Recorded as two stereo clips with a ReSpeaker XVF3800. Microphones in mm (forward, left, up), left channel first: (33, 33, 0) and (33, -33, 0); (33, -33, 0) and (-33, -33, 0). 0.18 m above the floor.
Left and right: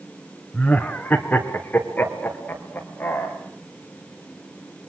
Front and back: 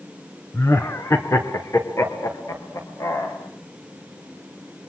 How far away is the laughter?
About 2 m.